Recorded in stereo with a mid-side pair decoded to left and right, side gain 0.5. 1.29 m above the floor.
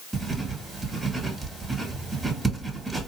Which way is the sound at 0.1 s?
15° right.